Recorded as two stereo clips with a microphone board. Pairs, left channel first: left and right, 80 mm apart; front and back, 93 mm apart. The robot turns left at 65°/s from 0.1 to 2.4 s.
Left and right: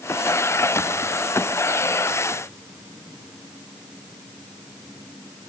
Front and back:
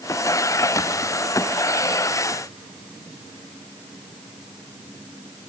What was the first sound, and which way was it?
Only background noise.